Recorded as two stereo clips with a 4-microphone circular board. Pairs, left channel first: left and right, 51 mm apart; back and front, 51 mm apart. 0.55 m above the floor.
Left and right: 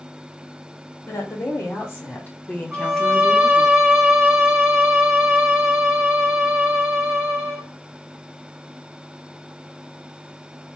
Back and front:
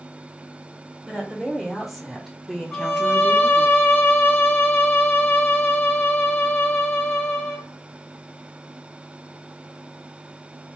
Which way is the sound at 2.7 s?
155° right.